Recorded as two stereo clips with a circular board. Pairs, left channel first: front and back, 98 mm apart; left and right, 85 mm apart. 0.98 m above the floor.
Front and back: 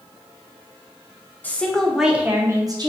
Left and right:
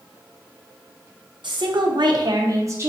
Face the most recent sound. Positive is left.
turn(degrees=-145)